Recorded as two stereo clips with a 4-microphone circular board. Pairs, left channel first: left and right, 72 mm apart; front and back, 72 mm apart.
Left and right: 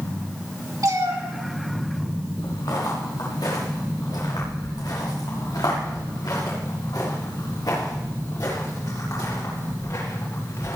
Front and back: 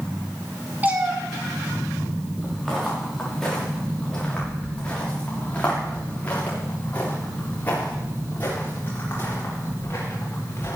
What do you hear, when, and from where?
0.8 s a cat meowing: 115° right, 2 m
2.4 s footsteps: 90° left, 5.5 m; by 10.8 s 55° left, 8 m